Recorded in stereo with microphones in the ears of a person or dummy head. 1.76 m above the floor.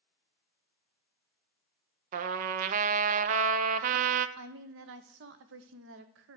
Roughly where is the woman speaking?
Right.